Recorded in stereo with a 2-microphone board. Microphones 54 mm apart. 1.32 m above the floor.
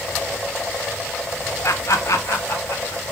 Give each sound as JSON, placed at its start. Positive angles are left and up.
{"t": 1.6, "sound": "laughter", "side_deg": 65, "distance_m": 0.7}